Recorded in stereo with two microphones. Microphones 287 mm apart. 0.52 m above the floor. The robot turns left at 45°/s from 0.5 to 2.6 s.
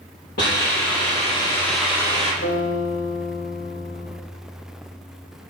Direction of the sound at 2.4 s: 55° left (ahead or behind).